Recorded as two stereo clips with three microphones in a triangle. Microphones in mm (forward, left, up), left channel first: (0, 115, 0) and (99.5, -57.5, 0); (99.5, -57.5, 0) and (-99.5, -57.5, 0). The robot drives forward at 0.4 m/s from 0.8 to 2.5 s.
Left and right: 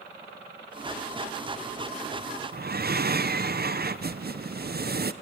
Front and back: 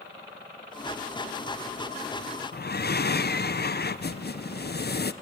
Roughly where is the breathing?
Ahead right.